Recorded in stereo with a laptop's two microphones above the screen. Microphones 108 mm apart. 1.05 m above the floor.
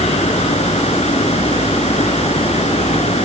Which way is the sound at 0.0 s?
85° left.